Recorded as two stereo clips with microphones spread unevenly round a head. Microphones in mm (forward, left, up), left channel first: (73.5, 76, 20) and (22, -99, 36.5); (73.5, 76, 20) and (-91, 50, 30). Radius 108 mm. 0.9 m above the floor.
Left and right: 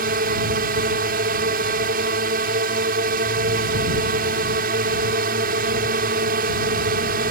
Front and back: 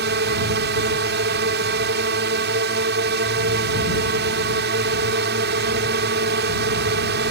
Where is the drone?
150° right.